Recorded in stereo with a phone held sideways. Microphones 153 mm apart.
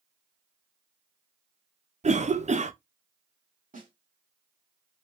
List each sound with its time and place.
2.0 s a cough: 50° right (ahead or behind), 0.5 m
3.7 s a snare drum: 60° right (ahead or behind), 2 m